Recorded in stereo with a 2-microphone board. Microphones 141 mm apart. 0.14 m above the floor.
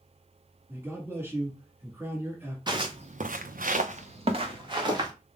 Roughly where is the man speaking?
Centre.